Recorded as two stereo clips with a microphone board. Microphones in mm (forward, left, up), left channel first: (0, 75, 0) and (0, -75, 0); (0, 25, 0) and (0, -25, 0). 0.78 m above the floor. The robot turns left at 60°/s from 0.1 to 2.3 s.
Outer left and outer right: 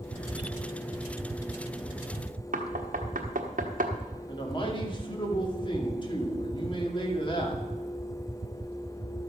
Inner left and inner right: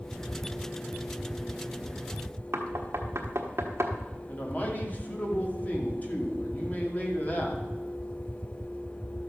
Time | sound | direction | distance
2.5 | knocking | 65° right (ahead or behind) | 1.3 m
4.3 | a man speaking | 30° left (ahead or behind) | 2 m